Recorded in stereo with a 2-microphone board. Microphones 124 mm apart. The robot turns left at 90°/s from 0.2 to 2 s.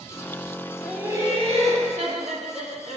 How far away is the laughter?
About 2.5 m.